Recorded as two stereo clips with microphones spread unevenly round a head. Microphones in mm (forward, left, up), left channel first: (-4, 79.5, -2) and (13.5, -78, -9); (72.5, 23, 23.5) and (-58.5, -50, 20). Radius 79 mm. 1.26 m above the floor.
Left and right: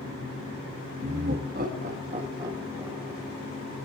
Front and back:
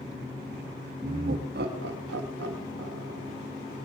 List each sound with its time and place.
1.0 s laughter: 110° right, 2 m; by 3.3 s 170° right, 2 m